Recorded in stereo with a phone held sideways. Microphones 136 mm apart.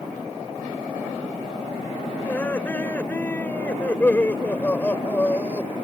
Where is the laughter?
15° left (ahead or behind).